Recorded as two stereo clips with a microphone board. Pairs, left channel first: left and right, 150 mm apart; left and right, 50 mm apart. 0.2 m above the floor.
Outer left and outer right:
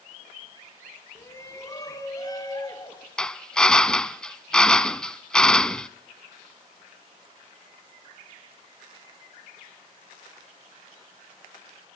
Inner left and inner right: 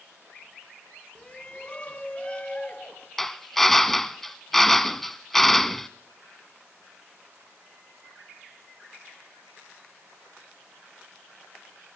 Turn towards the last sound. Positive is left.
turn(degrees=5)  # may be behind; listen again after turning